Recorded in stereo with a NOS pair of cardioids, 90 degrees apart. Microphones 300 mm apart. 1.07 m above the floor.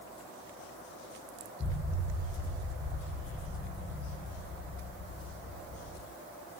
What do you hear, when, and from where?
1.6 s an explosion: 15° left, 0.8 m